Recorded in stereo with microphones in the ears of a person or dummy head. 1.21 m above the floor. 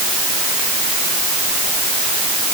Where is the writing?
No writing in this recording.